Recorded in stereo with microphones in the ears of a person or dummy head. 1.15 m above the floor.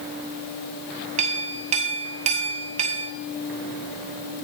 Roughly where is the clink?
Right.